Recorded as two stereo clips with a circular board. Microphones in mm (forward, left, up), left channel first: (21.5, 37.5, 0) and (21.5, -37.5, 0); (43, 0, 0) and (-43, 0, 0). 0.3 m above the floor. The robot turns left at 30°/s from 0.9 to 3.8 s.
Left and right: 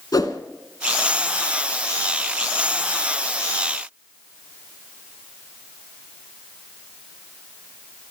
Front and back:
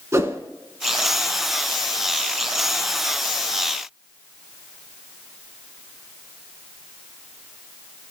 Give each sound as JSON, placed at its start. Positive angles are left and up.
{"t": 0.1, "sound": "a whoosh", "azimuth_deg": 125, "distance_m": 0.9}